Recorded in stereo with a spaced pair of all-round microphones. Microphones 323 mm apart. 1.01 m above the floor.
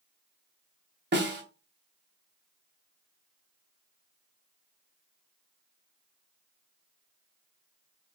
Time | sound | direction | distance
1.1 | a snare drum | 35° right (ahead or behind) | 0.6 m